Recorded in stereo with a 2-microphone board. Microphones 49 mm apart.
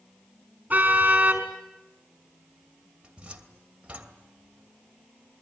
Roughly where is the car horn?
Right.